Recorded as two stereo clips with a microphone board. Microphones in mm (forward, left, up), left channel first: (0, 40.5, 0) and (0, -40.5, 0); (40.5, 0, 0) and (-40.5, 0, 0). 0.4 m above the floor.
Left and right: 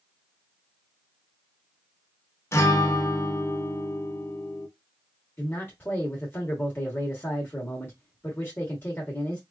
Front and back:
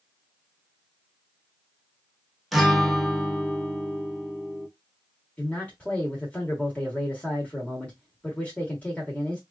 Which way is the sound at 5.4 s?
60° left.